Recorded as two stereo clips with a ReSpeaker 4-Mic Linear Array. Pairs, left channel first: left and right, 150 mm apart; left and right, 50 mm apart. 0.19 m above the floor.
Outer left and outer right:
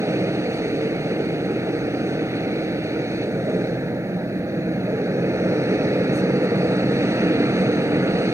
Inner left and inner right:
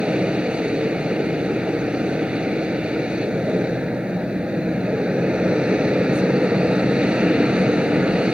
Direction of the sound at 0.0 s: 20° right (ahead or behind).